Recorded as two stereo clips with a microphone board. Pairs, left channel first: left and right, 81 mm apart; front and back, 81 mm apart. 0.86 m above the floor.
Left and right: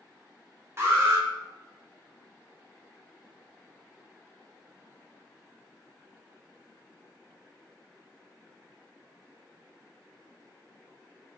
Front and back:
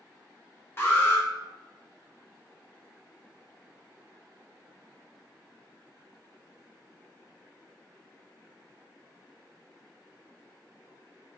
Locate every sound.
0.8 s an alarm: 50° right, 0.8 m